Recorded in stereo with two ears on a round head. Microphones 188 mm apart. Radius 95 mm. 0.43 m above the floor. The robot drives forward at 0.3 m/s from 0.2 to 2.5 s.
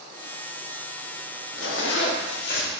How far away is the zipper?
About 0.6 m.